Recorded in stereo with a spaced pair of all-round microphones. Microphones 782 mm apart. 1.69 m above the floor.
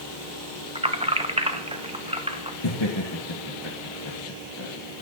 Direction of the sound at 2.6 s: 35° left (ahead or behind).